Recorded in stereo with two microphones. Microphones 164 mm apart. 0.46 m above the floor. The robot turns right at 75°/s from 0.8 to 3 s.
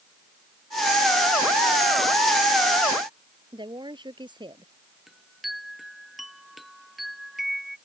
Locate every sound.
3.5 s a woman speaking: 30° right (ahead or behind)
5.1 s a chime: centre (ahead or behind)